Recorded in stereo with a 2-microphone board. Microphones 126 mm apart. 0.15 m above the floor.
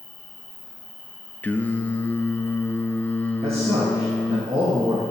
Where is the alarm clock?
I don't hear an alarm clock.